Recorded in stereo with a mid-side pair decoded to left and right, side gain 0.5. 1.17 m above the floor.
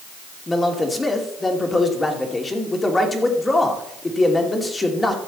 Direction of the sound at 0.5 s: 20° left.